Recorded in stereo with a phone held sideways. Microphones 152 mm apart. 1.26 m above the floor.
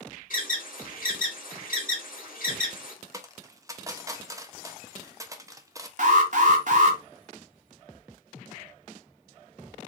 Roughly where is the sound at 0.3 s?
Left.